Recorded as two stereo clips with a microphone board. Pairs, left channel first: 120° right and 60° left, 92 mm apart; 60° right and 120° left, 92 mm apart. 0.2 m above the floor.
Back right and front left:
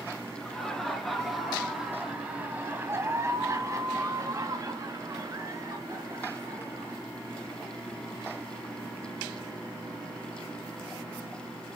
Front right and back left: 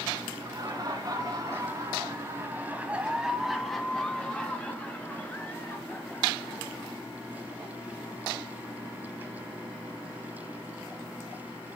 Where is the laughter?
160° left, 2.5 m; by 7.0 s 5° left, 4.5 m.